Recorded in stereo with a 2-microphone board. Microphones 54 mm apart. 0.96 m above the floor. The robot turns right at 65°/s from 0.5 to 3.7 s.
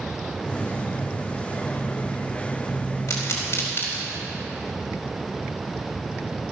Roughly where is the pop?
Left.